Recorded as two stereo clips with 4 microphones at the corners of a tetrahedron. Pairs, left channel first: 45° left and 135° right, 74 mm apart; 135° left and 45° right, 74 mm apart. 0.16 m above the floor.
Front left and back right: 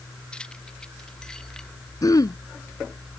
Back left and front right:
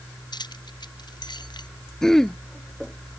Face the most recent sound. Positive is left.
turn(degrees=55)